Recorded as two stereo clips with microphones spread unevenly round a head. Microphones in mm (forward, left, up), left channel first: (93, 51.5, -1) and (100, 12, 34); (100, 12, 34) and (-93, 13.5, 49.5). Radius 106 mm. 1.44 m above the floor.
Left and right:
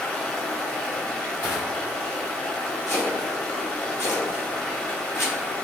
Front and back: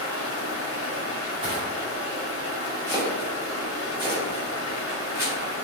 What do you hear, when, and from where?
0.0 s running water: 15° right, 1.0 m
1.4 s crushing: 120° left, 1.9 m
2.9 s chopping: 100° left, 1.7 m